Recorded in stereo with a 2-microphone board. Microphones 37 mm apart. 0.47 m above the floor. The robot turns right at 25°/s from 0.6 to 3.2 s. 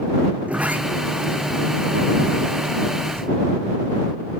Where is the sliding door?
140° right; by 3.3 s 75° right.